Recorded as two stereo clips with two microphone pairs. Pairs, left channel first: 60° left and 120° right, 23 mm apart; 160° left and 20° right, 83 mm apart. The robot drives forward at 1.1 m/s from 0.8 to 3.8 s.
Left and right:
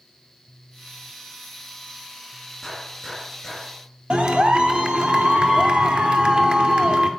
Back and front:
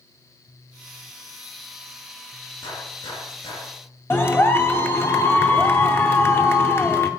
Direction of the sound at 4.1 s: 140° right.